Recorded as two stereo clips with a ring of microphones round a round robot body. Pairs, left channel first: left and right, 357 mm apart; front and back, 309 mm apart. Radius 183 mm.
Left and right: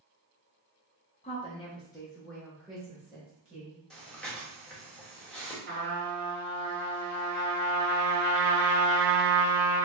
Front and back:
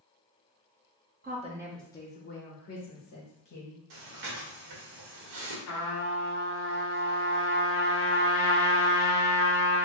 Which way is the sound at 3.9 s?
Straight behind.